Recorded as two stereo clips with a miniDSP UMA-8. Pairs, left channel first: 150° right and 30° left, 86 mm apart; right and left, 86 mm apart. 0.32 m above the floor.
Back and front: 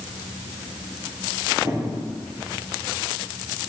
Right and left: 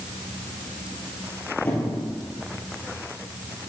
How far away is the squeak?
About 2.5 m.